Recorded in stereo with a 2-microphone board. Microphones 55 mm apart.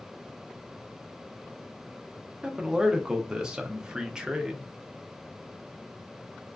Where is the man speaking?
10° right (ahead or behind), 0.5 m.